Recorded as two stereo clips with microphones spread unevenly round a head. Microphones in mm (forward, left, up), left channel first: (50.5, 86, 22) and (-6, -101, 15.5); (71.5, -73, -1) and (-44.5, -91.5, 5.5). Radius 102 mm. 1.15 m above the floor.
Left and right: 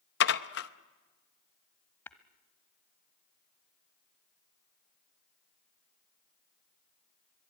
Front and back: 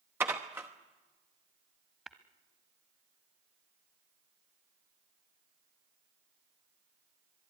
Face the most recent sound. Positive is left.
turn(degrees=120)